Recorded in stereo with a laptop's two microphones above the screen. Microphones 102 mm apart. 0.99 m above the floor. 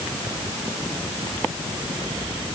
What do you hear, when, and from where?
Only background noise.